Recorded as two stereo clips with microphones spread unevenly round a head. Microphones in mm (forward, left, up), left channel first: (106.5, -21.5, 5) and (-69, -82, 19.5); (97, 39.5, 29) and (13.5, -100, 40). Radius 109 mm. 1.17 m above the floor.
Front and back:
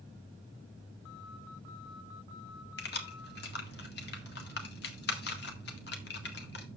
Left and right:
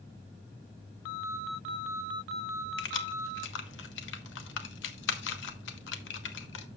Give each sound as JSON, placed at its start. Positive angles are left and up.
{"t": 2.8, "sound": "keys jangling", "azimuth_deg": 70, "distance_m": 1.3}